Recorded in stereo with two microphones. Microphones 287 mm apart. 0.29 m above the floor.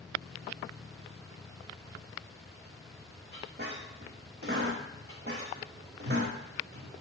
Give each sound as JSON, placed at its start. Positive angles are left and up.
{"t": 3.3, "sound": "a squeak", "side_deg": -40, "distance_m": 1.0}